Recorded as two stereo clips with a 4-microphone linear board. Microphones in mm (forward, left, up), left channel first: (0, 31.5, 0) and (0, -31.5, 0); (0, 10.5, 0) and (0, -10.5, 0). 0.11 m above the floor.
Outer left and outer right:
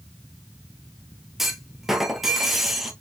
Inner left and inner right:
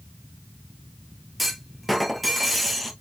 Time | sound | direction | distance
1.4 | a clunk | centre (ahead or behind) | 1.1 m